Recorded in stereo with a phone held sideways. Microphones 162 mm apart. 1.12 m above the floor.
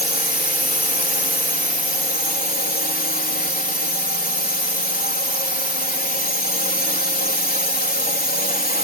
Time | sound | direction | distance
0.0 | a drone | 65° left (ahead or behind) | ?